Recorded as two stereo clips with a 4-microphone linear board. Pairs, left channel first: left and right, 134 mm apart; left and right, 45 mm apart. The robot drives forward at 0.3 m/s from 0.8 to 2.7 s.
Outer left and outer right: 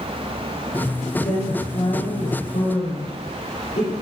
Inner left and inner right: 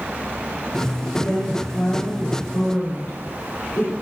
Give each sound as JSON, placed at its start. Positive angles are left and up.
{"t": 1.2, "sound": "a woman speaking", "side_deg": 60, "distance_m": 2.0}